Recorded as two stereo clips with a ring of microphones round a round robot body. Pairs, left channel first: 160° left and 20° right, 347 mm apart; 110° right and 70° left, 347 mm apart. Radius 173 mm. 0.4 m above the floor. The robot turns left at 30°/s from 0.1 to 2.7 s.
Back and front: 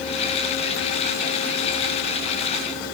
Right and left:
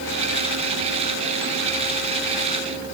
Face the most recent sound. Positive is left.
No sound to turn to.